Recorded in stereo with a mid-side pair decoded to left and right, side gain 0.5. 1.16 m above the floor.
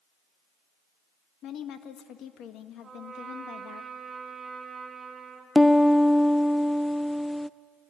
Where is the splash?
I don't hear a splash.